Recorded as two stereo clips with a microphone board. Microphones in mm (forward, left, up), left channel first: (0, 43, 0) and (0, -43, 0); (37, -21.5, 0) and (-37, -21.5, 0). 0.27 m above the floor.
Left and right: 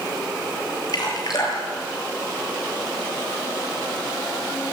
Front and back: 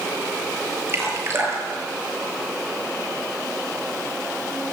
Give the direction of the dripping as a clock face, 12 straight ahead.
8 o'clock.